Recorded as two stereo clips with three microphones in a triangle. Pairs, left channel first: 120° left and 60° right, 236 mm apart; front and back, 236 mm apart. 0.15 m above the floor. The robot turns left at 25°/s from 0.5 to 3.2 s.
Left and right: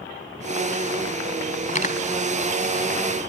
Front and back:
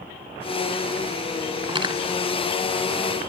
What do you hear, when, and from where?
1.7 s cutlery clinking: 135° left, 0.7 m; by 2.0 s 130° left, 0.7 m